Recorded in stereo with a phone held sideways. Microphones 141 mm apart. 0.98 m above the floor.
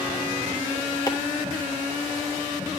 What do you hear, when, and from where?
1.1 s chopping: 25° left (ahead or behind), 1.5 m